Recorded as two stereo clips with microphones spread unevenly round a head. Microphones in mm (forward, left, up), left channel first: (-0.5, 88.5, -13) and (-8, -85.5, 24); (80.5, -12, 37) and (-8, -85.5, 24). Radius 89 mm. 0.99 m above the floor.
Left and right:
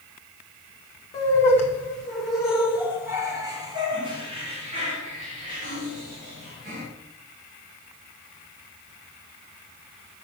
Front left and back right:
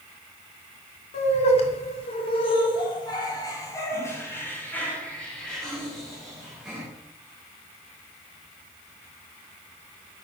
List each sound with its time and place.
1.1 s laughter: 15° left, 2.5 m; by 6.8 s 55° right, 4 m